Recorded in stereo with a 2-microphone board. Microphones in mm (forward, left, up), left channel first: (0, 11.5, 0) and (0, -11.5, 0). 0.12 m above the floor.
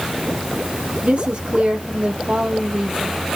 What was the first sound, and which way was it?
A woman speaking, 70° right (ahead or behind).